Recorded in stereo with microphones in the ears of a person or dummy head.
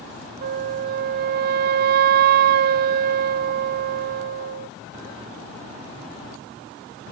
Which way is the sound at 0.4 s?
55° right (ahead or behind).